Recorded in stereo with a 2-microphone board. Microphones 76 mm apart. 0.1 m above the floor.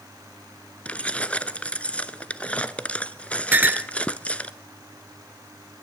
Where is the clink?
25° right (ahead or behind), 0.8 m.